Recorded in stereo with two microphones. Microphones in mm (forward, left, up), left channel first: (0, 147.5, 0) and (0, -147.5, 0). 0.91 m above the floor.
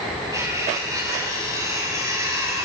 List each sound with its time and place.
0.3 s cutlery clinking: 10° right (ahead or behind), 4.5 m